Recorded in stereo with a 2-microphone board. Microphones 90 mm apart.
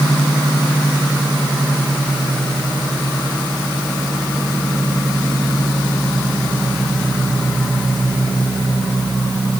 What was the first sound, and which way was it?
Only background noise.